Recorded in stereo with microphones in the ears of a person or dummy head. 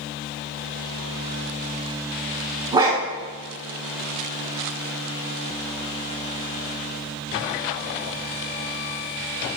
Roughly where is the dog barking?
Right.